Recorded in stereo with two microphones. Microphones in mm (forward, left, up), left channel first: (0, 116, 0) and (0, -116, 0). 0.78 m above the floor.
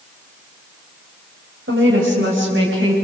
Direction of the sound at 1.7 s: 60° right (ahead or behind).